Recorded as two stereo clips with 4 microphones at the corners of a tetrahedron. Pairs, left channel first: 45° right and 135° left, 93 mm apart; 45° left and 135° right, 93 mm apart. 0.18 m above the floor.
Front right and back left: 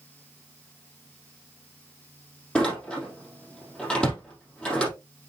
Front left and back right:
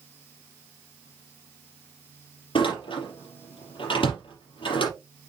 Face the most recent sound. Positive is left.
turn(degrees=35)